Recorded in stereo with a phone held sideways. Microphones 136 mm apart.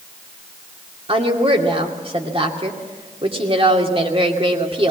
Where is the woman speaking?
45° right (ahead or behind), 2.5 m.